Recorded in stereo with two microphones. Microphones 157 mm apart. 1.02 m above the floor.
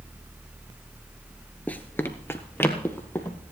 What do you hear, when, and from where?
1.7 s running footsteps: 10° left (ahead or behind), 1.0 m